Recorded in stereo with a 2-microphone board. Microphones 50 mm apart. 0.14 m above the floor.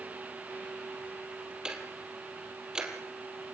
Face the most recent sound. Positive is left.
turn(degrees=-15)  # may be behind; listen again after turning